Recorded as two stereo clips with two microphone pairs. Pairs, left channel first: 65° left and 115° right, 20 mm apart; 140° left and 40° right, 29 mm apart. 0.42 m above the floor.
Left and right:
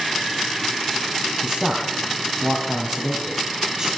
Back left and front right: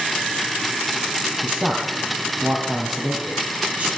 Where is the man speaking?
70° right, 2.5 m.